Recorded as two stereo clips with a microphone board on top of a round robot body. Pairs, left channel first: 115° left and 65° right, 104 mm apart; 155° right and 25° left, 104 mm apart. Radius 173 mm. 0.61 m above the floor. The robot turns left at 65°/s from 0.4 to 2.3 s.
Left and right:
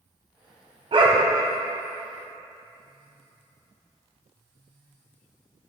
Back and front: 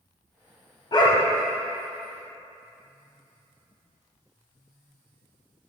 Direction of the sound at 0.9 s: 105° right.